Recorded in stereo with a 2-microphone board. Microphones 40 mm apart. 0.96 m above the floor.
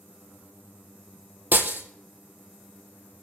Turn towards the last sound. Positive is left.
turn(degrees=-55)  # may be behind; listen again after turning